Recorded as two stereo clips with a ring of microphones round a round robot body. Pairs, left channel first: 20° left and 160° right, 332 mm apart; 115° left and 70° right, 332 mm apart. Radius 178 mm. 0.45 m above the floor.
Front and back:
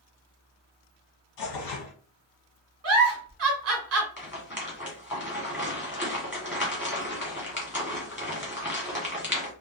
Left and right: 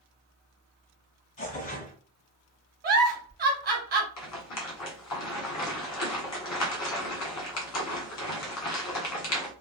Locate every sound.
1.4 s tearing paper: 45° left, 1.3 m
2.8 s a giggle: 125° right, 1.2 m
4.2 s a rattle: 120° left, 1.6 m